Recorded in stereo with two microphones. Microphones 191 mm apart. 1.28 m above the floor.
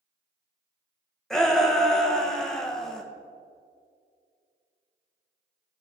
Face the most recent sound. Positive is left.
turn(degrees=5)  # may be behind; listen again after turning